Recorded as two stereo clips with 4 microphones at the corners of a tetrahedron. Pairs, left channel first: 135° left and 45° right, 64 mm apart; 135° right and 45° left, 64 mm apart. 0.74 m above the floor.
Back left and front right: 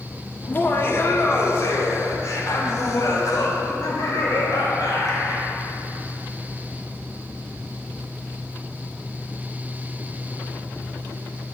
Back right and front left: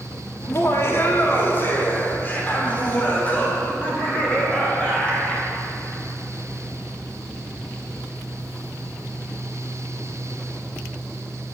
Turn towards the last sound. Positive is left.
turn(degrees=150)